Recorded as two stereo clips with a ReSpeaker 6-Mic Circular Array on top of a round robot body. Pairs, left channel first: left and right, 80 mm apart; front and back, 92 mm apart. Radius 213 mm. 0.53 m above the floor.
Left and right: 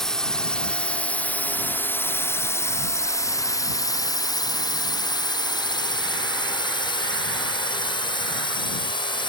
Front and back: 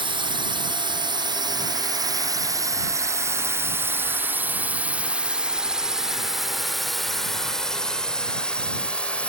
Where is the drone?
170° left; by 9.3 s 75° left.